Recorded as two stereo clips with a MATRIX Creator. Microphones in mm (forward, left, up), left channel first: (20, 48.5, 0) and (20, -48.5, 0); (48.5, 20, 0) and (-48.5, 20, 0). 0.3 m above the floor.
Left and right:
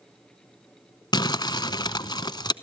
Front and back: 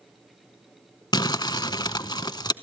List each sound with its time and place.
1.1 s crumpling: 45° left, 0.6 m